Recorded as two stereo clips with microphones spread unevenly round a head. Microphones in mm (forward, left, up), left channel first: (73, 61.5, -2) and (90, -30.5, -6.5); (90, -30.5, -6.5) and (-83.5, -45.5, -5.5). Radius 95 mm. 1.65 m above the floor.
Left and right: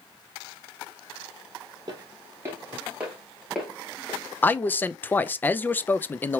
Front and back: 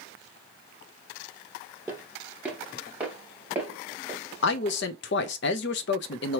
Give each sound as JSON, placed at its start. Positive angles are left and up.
{"t": 1.9, "sound": "footsteps", "azimuth_deg": -100, "distance_m": 1.8}
{"t": 4.4, "sound": "a man speaking", "azimuth_deg": 30, "distance_m": 0.5}